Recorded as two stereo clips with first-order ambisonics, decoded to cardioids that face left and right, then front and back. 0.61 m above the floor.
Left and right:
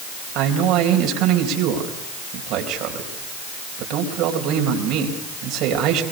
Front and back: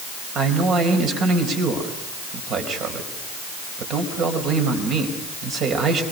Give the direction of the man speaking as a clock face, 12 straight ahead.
4 o'clock.